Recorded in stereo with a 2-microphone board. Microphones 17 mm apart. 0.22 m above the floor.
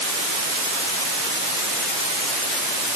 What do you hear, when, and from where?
Only background noise.